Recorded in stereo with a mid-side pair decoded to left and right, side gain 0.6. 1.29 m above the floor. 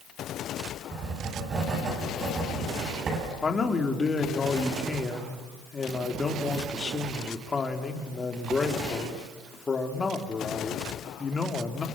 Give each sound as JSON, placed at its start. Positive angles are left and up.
{"t": 0.9, "sound": "writing", "azimuth_deg": -40, "distance_m": 9.0}
{"t": 3.4, "sound": "a man speaking", "azimuth_deg": 25, "distance_m": 3.0}